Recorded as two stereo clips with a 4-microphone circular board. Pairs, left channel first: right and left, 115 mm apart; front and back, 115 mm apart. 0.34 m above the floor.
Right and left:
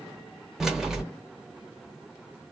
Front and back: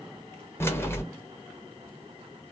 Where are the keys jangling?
15° left, 0.6 m.